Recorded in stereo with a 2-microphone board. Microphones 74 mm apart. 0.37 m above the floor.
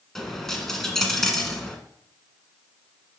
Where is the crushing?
I don't hear crushing.